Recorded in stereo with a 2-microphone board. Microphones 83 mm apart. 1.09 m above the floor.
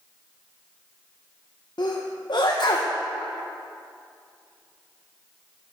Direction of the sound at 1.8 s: 60° left (ahead or behind).